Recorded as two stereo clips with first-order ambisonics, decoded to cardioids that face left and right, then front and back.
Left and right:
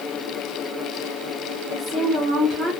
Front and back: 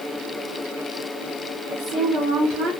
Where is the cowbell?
No cowbell in this recording.